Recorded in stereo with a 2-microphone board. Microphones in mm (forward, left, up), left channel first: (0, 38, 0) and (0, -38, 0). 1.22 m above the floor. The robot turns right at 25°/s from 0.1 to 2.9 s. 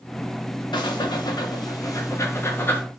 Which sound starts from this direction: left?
Breathing, at 0.7 s.